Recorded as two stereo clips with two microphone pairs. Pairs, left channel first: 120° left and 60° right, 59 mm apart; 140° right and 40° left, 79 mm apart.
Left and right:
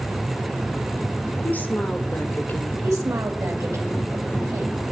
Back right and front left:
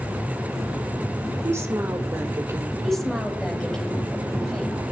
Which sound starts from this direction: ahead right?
A woman speaking, at 2.8 s.